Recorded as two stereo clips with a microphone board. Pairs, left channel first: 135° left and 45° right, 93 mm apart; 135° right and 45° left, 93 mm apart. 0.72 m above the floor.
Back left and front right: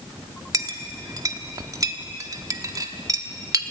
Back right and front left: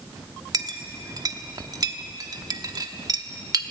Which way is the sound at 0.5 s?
Straight ahead.